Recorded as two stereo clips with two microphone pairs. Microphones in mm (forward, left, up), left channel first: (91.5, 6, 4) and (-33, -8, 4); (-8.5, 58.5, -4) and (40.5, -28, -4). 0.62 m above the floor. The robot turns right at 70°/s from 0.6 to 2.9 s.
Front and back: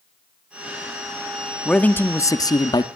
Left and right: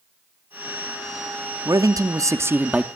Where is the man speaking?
70° right, 0.6 m; by 2.9 s 15° left, 0.6 m.